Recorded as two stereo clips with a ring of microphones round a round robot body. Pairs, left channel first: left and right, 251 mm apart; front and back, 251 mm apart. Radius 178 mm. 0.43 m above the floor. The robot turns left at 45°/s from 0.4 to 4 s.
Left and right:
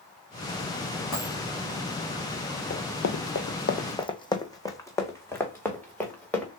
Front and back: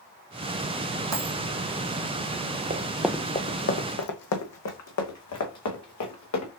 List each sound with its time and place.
1.1 s a dropped coin: 170° left, 2.5 m; by 1.4 s 160° left, 2.5 m
2.7 s running footsteps: 135° left, 0.5 m; by 6.5 s 5° left, 2.5 m